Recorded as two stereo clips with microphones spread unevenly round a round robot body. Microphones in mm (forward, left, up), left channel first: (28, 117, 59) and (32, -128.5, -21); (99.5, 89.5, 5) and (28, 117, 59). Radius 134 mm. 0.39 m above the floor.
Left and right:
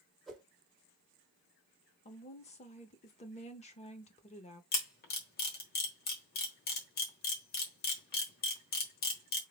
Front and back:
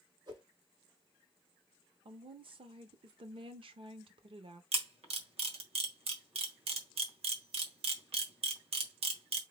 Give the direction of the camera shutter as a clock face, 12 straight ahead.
7 o'clock.